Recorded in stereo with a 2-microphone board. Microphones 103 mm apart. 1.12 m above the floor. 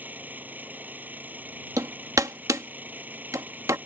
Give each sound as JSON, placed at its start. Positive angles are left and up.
{"t": 0.0, "sound": "an engine running", "side_deg": -15}
{"t": 1.8, "sound": "hammering", "side_deg": -35}